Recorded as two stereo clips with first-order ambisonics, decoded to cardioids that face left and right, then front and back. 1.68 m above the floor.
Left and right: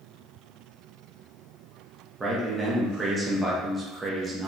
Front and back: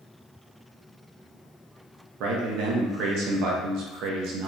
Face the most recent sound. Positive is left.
turn(degrees=-165)